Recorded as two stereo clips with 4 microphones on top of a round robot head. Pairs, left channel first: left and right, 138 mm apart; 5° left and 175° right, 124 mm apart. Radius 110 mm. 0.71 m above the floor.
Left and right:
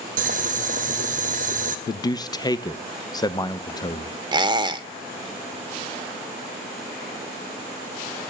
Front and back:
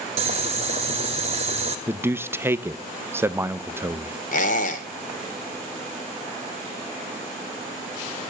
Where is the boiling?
130° right, 0.9 m.